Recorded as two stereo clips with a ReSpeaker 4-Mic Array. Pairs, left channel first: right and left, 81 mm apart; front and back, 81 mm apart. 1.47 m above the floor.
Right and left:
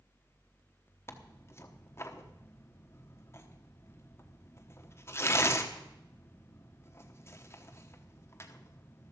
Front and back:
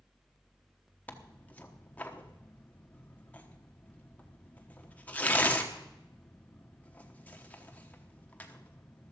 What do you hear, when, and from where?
1.1 s tearing paper: 60° right, 1.1 m